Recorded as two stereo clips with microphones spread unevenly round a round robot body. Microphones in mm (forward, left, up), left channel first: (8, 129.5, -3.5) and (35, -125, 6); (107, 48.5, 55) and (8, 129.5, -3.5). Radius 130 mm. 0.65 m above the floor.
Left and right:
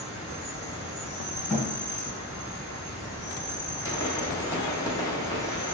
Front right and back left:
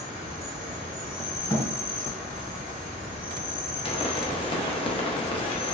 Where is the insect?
10° left, 1.7 m.